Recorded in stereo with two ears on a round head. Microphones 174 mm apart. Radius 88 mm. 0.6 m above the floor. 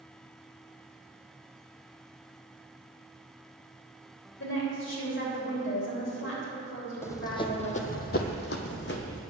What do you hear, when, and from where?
4.4 s a woman speaking: 60° left (ahead or behind), 3 m
7.0 s running footsteps: 15° left (ahead or behind), 1.0 m; by 9.2 s 60° left (ahead or behind), 1.4 m